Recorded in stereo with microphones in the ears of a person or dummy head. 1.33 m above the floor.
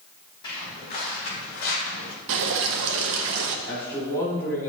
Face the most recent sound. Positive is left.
turn(degrees=15)  # may be behind; listen again after turning